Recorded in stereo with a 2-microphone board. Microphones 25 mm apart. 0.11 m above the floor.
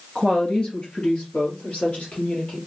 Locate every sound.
0.1 s a woman speaking: 40° left (ahead or behind), 1.5 m; by 2.6 s 65° left (ahead or behind), 2.5 m